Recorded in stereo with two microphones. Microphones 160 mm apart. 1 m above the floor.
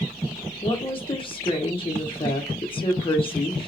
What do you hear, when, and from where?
0.6 s a woman speaking: 35° left (ahead or behind), 0.7 m